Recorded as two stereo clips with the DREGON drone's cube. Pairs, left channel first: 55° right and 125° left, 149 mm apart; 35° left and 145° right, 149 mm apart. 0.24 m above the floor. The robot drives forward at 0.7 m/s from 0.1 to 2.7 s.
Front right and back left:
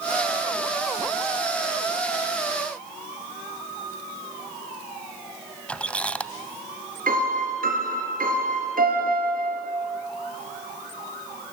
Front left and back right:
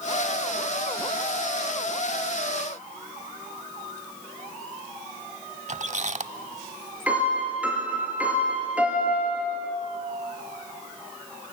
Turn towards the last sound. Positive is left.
turn(degrees=135)